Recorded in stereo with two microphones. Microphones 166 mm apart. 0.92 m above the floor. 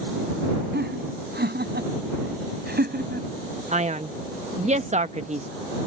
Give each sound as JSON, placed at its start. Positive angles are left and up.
{"t": 0.7, "sound": "laughter", "side_deg": -85}
{"t": 3.7, "sound": "a man speaking", "side_deg": -45}